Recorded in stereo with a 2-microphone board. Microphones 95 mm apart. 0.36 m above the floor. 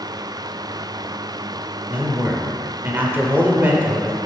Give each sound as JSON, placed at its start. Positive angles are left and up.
{"t": 1.9, "sound": "a man speaking", "side_deg": -20, "distance_m": 0.9}